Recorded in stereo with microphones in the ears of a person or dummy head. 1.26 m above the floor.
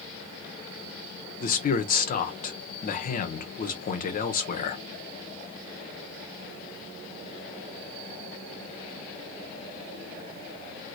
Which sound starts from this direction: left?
A man speaking, at 1.4 s.